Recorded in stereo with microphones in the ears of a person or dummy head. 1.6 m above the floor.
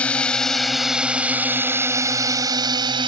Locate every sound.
0.0 s a drone: 5° left (ahead or behind); by 3.1 s 35° right (ahead or behind)